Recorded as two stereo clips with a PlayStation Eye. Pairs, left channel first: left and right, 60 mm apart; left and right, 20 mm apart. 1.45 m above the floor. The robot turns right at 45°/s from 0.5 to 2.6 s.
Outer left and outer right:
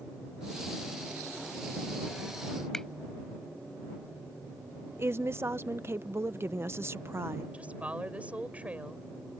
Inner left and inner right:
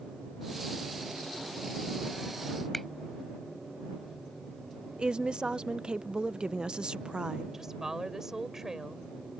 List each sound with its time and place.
2.7 s a finger snap: 5° left (ahead or behind)
5.0 s a woman speaking: 45° right (ahead or behind)
7.5 s a woman speaking: 25° right (ahead or behind)